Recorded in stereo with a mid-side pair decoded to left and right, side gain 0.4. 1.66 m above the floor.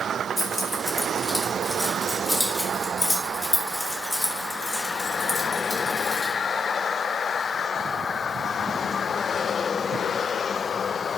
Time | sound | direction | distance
0.4 | keys jangling | 5° left | 5 m